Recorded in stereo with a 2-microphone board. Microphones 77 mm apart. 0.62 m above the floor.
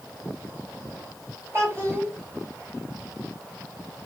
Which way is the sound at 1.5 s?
35° right (ahead or behind).